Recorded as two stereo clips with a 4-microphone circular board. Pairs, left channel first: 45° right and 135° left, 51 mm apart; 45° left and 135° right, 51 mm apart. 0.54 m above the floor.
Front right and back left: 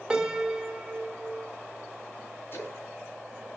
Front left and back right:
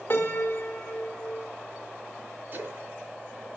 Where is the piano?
60° left, 1.5 m.